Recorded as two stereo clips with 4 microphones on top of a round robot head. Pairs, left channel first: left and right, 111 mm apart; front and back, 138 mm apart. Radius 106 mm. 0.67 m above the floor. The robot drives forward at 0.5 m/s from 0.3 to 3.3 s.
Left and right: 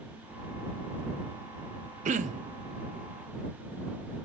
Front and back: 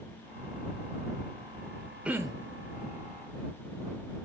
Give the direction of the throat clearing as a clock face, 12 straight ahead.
3 o'clock.